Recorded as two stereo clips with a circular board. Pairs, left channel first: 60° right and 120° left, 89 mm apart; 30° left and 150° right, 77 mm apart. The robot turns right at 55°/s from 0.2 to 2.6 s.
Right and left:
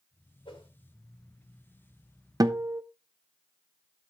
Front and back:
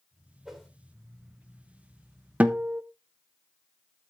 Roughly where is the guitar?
Behind left.